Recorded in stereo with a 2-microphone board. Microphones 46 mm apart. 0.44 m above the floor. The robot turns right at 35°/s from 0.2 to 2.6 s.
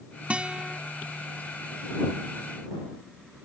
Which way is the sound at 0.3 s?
30° right (ahead or behind).